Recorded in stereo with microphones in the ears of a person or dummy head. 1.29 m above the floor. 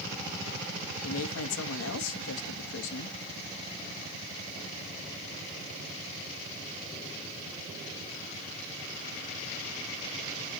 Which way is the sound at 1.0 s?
80° left.